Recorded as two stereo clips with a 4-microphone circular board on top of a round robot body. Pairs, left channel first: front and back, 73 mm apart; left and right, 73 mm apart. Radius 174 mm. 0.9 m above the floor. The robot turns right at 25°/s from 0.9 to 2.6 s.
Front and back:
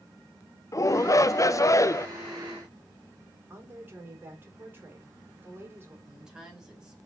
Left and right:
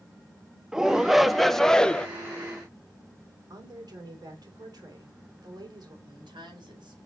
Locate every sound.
0.7 s a shout: 10° right, 0.8 m; by 2.1 s 20° left, 0.8 m
3.5 s a woman speaking: 120° right, 3 m
6.1 s a woman speaking: 100° right, 4.5 m